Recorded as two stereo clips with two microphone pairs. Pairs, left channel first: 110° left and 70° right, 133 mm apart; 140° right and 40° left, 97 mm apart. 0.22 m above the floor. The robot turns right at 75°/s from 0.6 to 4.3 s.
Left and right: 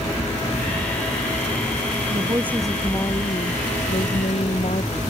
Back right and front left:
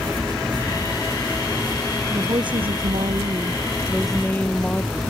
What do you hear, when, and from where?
2.1 s a woman speaking: 20° right; by 5.0 s 145° left